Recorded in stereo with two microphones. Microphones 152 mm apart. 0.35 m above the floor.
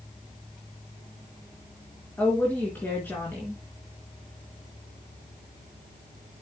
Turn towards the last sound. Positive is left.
turn(degrees=15)  # may be behind; listen again after turning